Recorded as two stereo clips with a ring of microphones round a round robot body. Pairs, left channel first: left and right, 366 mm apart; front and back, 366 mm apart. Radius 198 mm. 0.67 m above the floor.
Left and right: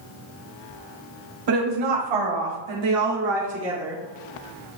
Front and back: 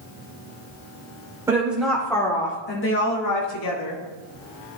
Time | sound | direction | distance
1.5 | a woman speaking | 100° right | 2.5 m